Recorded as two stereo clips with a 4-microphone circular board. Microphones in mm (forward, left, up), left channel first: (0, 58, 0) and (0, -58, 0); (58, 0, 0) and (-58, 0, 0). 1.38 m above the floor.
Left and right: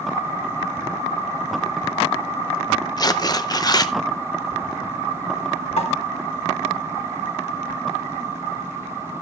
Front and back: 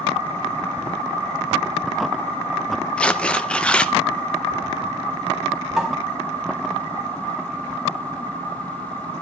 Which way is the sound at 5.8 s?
95° left.